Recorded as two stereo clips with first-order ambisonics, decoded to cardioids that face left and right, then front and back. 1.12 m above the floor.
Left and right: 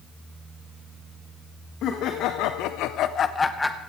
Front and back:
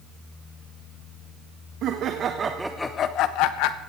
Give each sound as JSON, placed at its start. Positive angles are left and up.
{"t": 1.8, "sound": "laughter", "azimuth_deg": 135, "distance_m": 1.5}